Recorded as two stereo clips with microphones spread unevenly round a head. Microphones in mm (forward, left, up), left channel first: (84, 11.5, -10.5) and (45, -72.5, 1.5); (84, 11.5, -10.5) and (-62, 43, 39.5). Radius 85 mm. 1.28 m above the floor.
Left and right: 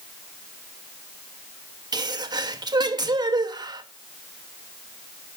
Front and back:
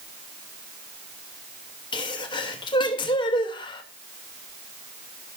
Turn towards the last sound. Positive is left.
turn(degrees=-70)